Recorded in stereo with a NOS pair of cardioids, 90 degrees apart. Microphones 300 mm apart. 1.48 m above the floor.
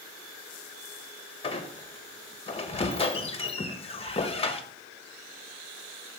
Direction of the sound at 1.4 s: 20° left.